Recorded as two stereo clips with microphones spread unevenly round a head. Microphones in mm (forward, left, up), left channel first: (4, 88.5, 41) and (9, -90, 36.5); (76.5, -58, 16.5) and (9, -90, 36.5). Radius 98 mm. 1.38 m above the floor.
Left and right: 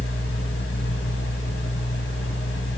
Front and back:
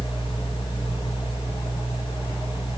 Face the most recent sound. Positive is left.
turn(degrees=65)